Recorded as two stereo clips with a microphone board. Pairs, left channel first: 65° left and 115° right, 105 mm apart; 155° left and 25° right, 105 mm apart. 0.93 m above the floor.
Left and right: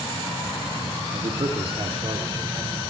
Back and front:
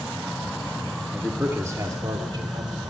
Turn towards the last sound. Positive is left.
turn(degrees=-65)